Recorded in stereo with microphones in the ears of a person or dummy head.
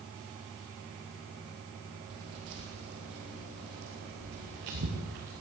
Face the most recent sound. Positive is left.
turn(degrees=-65)  # may be behind; listen again after turning